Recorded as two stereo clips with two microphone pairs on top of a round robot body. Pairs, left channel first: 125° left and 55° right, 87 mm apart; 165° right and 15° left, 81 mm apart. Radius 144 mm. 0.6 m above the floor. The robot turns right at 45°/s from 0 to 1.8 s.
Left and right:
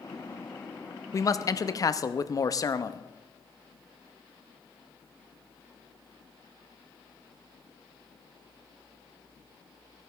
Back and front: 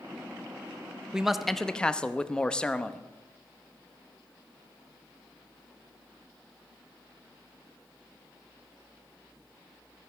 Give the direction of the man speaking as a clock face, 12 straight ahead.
9 o'clock.